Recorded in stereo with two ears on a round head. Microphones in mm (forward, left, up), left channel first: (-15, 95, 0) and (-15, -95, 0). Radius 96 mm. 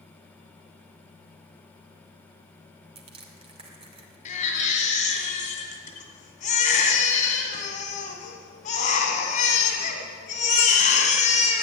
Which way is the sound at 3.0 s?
30° right (ahead or behind).